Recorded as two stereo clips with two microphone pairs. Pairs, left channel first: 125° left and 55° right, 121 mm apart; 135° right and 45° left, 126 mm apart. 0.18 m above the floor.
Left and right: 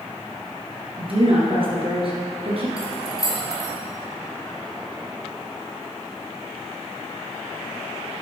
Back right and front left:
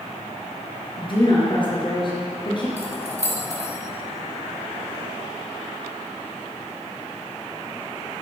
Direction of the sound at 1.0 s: 90° right.